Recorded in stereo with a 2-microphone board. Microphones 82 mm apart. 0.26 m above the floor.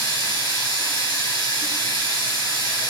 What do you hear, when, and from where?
0.0 s running water: 50° left (ahead or behind), 2.5 m